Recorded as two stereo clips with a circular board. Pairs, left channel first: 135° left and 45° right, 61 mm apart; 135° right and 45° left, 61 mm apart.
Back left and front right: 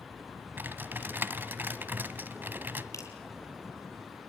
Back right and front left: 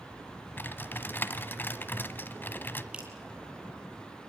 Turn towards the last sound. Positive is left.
turn(degrees=115)